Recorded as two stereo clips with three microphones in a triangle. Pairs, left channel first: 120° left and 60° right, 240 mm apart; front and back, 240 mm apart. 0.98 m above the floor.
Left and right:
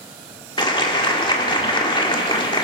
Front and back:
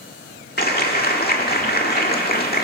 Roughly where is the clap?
Ahead left.